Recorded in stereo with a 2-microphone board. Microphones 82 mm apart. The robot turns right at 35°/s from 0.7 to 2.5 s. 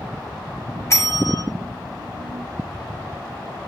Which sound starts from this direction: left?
A bell, at 0.9 s.